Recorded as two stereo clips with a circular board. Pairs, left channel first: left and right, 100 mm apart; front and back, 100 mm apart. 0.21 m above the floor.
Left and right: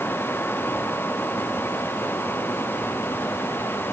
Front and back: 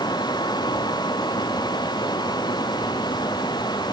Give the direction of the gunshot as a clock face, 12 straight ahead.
I don't hear a gunshot.